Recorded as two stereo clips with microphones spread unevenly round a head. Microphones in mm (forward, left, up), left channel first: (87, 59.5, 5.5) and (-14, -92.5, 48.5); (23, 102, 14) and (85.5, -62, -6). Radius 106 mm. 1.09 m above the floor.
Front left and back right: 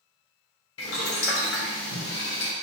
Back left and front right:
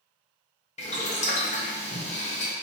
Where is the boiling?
60° left, 0.8 m.